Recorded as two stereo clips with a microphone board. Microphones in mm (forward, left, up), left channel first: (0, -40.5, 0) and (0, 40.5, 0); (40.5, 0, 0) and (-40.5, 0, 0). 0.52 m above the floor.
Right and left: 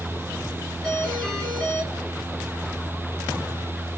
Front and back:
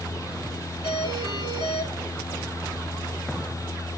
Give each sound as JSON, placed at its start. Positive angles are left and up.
{"t": 0.8, "sound": "a doorbell", "azimuth_deg": -5, "distance_m": 9.0}